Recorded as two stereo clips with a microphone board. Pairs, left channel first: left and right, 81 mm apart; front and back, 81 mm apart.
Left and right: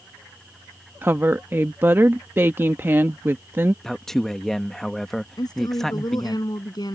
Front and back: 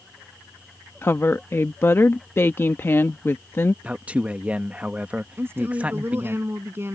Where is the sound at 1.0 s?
45° right.